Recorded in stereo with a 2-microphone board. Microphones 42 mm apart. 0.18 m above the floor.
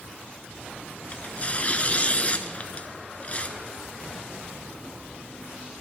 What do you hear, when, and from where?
1.1 s tearing paper: 30° left (ahead or behind), 0.7 m